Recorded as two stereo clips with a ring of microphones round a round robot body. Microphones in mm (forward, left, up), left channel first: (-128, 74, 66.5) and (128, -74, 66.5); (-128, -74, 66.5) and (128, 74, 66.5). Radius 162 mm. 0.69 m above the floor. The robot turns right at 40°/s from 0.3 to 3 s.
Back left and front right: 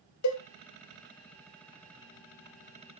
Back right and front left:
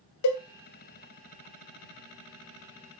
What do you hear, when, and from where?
0.2 s a cowbell: 175° right, 0.7 m